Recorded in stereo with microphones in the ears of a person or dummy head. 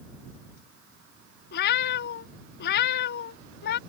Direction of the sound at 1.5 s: 55° left (ahead or behind).